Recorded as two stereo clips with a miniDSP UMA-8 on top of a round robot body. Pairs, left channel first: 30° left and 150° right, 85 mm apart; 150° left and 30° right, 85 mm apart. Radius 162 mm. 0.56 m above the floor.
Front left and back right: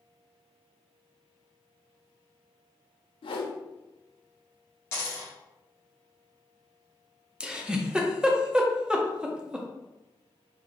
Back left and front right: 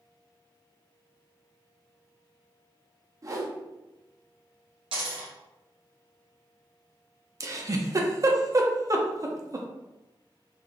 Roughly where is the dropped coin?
Ahead right.